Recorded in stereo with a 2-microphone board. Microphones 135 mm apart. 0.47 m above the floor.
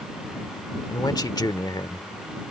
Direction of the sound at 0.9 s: 30° left (ahead or behind).